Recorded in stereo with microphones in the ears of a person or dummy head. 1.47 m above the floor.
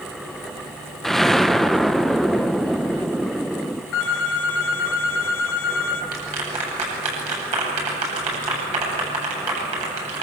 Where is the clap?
35° right (ahead or behind), 9 m.